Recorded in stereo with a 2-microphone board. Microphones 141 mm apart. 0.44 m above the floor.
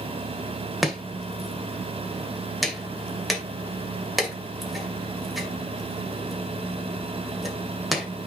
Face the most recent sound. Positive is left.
turn(degrees=0)  # may be behind; listen again after turning